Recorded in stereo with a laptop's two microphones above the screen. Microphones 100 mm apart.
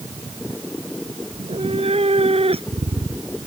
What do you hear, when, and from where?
1.3 s a cat meowing: 85° right; by 3.5 s 75° right (ahead or behind)